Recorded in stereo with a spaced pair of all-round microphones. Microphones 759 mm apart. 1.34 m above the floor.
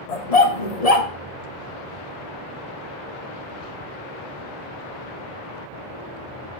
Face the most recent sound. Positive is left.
turn(degrees=50)  # may be behind; listen again after turning